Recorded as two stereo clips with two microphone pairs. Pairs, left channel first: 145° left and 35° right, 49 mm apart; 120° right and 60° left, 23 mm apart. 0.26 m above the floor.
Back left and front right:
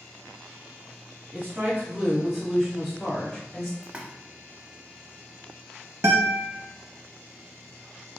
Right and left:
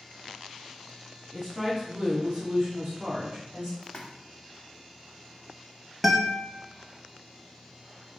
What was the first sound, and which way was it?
A woman speaking, 15° right.